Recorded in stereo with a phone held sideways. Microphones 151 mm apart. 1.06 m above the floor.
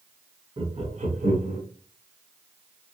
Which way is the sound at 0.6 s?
40° right (ahead or behind).